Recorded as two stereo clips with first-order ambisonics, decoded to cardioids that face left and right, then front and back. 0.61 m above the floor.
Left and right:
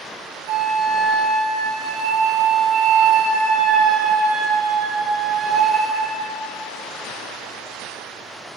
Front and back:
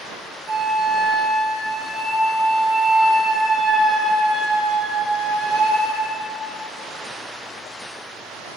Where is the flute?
115° right, 1.7 m.